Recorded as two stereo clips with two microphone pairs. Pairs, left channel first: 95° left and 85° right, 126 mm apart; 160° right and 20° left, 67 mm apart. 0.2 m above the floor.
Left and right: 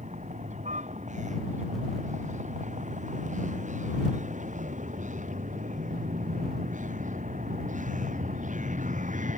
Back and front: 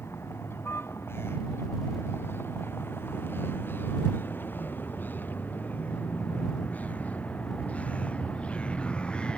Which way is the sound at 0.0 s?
105° right.